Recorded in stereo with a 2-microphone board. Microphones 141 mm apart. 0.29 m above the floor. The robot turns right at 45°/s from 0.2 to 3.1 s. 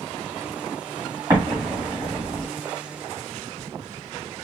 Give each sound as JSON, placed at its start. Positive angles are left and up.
{"t": 1.3, "sound": "an explosion", "side_deg": -25, "distance_m": 1.5}